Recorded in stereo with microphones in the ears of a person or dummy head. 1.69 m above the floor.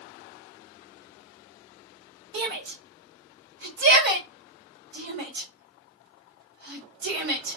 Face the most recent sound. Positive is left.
turn(degrees=-60)  # may be behind; listen again after turning